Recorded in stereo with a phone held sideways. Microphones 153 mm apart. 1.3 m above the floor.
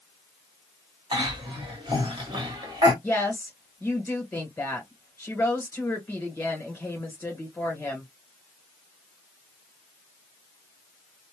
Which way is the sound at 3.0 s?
15° left (ahead or behind).